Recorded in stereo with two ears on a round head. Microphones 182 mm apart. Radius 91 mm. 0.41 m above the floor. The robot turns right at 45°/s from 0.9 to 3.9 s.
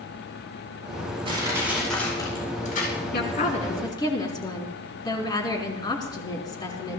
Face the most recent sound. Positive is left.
turn(degrees=160)